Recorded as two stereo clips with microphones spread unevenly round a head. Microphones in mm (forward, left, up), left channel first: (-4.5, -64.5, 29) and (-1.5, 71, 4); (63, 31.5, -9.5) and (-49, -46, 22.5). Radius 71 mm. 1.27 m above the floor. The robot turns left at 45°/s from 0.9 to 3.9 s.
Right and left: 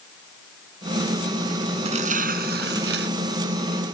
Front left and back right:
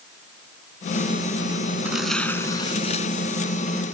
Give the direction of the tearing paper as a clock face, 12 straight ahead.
7 o'clock.